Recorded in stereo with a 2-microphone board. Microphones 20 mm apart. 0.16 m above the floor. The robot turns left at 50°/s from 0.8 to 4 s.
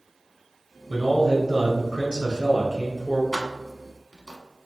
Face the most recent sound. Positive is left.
turn(degrees=25)  # may be behind; listen again after turning